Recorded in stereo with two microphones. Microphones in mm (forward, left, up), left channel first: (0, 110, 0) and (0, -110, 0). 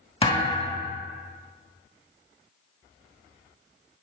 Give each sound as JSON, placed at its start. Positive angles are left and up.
{"t": 0.2, "sound": "a thud", "side_deg": 25, "distance_m": 1.5}